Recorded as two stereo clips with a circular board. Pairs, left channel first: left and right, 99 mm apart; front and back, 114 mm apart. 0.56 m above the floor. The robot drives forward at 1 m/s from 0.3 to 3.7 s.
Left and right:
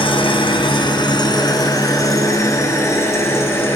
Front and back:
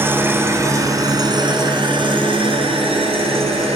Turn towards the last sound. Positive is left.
turn(degrees=155)